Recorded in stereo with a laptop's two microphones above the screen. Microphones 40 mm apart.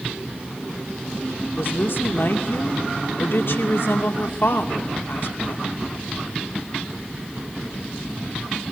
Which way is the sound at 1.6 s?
70° left (ahead or behind).